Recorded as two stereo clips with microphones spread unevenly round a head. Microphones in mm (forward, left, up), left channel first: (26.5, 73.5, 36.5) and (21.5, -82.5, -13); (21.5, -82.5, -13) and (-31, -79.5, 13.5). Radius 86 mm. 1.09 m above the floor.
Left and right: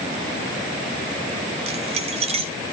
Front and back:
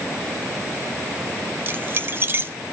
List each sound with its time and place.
1.7 s keys jangling: 150° right, 1.1 m